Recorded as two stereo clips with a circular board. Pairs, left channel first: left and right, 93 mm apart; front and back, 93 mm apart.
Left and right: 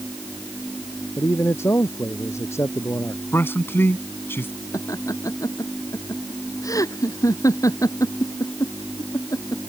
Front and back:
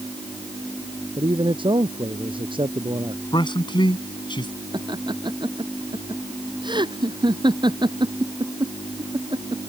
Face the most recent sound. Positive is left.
turn(degrees=145)